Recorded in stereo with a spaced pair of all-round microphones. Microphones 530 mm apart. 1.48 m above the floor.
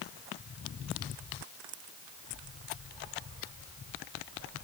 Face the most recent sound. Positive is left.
No sound to turn to.